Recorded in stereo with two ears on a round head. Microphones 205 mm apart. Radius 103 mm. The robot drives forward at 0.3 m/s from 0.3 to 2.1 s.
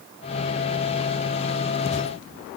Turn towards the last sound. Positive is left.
No sound to turn to.